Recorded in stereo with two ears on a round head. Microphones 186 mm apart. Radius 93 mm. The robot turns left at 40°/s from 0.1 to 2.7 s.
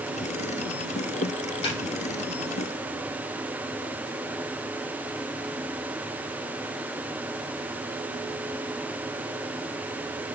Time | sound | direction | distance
1.6 | a snare drum | 25° left (ahead or behind) | 4.5 m